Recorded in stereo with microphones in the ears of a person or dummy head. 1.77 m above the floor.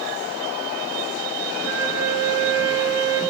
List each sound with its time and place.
1.6 s a flute: 25° right (ahead or behind), 2.5 m